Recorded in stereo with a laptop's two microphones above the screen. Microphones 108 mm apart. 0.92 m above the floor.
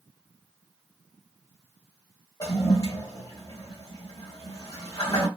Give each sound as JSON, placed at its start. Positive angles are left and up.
{"t": 2.4, "sound": "a toilet flushing", "side_deg": 35, "distance_m": 1.4}